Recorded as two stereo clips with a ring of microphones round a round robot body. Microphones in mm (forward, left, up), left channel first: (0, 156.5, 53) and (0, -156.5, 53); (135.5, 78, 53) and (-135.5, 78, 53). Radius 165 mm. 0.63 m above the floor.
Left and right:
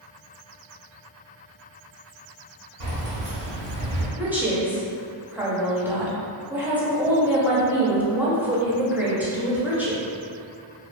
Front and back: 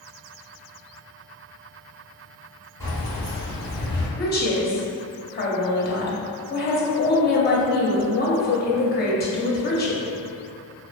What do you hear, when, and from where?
2.8 s keys jangling: 80° right, 1.5 m
4.2 s a woman speaking: 10° right, 0.6 m